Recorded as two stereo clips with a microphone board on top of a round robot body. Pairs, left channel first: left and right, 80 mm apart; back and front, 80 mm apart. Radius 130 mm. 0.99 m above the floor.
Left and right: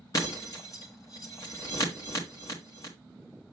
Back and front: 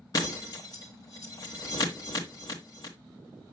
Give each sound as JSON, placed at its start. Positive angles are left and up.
{"t": 0.1, "sound": "breaking glass", "azimuth_deg": 135, "distance_m": 1.3}